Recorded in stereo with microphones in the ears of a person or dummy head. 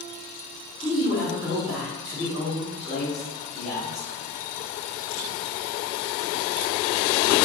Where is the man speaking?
Centre (ahead or behind), 1.4 m.